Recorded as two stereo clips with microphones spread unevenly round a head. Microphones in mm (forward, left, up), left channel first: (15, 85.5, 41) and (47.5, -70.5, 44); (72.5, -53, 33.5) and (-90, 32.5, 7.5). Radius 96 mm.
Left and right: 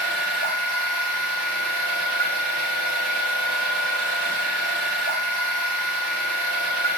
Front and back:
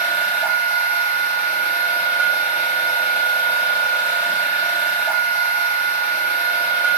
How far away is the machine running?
About 6.5 m.